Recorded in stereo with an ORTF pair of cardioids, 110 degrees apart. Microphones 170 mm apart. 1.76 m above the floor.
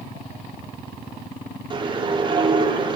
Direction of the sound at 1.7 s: 30° right.